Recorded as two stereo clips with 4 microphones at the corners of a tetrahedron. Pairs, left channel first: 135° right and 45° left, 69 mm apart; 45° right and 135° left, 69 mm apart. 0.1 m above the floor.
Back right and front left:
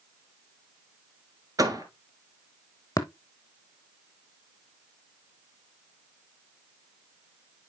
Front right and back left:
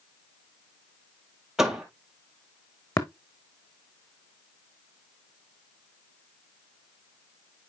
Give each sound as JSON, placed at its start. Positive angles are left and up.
{"t": 1.6, "sound": "a door slam", "azimuth_deg": 50, "distance_m": 1.4}
{"t": 3.0, "sound": "tapping", "azimuth_deg": -90, "distance_m": 1.0}